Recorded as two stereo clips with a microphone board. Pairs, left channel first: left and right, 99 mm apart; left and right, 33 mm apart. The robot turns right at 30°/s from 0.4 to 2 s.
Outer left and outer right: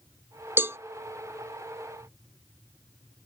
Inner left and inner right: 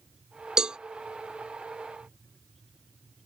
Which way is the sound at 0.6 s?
20° right (ahead or behind).